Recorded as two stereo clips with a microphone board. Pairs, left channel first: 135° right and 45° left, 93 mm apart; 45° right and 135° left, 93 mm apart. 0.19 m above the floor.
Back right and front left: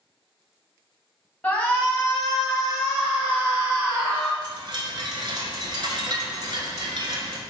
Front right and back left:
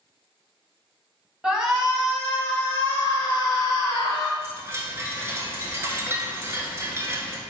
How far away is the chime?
About 0.7 m.